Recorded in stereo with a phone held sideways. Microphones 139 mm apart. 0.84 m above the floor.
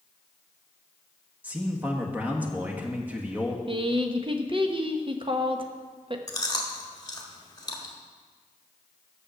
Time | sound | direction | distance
1.4 | a man speaking | 10° right (ahead or behind) | 1.4 m
3.7 | a woman speaking | 40° right (ahead or behind) | 0.8 m
6.3 | chewing | 30° left (ahead or behind) | 1.4 m